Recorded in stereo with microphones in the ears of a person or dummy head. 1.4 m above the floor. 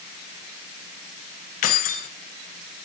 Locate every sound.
1.6 s keys jangling: 50° left (ahead or behind), 0.8 m